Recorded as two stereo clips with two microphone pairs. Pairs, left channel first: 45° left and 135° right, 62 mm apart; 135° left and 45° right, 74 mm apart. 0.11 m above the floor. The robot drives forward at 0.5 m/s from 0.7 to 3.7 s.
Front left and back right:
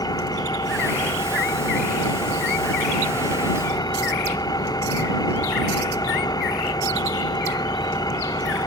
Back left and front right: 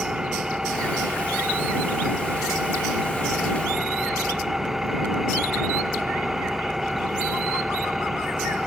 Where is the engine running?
40° left; by 8.7 s 45° left.